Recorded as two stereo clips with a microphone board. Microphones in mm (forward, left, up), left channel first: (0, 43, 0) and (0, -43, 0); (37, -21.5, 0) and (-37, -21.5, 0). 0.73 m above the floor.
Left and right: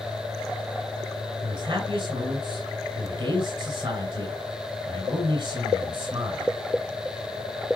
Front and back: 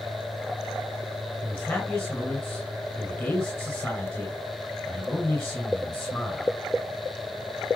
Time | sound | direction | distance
1.4 | a man speaking | 60° right | 5.5 m